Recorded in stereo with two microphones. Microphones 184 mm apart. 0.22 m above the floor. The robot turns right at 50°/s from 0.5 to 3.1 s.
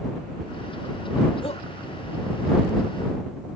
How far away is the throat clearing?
I don't hear throat clearing.